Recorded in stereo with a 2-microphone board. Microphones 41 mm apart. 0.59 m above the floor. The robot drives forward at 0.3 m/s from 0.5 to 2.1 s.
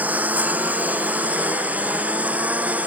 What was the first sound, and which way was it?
A lawn mower, 40° right (ahead or behind).